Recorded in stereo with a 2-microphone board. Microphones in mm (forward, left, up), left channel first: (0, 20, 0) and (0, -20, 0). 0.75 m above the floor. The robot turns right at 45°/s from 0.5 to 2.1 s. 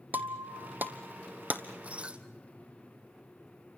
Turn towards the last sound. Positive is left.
turn(degrees=-30)  # may be behind; listen again after turning